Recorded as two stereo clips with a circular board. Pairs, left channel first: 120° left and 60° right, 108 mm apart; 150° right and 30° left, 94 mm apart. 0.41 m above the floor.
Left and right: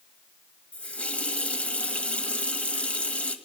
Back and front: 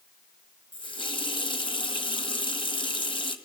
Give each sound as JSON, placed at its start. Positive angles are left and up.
{"t": 0.7, "sound": "a running tap", "azimuth_deg": -160, "distance_m": 1.5}